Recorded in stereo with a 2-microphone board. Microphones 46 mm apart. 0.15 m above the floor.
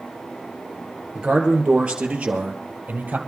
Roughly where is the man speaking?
Centre.